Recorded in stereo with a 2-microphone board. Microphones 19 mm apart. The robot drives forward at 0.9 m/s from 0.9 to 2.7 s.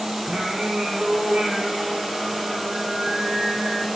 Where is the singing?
80° right, 9 m.